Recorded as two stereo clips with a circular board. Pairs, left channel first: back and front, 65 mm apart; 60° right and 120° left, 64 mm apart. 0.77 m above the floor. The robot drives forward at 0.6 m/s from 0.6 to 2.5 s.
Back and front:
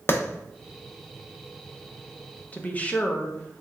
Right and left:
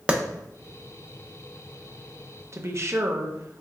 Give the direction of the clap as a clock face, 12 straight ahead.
6 o'clock.